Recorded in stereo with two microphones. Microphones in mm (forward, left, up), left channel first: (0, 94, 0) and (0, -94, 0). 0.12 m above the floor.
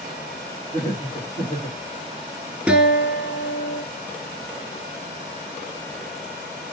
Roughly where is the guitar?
Centre.